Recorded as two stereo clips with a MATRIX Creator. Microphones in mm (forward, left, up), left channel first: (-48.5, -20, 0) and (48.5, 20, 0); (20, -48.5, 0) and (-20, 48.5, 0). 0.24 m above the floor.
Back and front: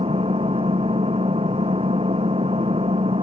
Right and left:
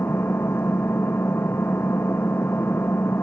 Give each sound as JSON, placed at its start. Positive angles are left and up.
{"t": 0.0, "sound": "an engine running", "azimuth_deg": 0}